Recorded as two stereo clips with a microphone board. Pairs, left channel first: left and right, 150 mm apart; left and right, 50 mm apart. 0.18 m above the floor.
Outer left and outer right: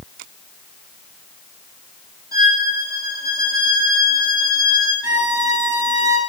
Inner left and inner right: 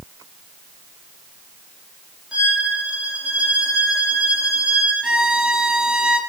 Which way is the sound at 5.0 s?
30° right (ahead or behind).